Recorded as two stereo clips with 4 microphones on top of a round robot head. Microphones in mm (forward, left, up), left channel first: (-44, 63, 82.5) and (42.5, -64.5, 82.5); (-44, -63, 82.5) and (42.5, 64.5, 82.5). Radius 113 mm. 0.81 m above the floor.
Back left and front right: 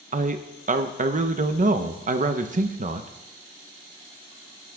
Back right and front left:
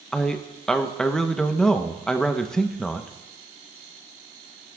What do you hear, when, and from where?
0.1 s a man speaking: 40° right, 0.9 m